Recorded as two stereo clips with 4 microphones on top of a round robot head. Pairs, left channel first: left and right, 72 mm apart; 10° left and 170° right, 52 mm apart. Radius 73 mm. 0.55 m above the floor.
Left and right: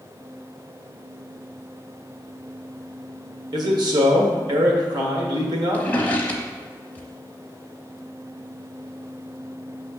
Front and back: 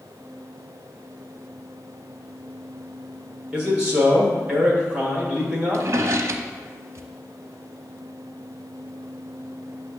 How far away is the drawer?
About 0.5 m.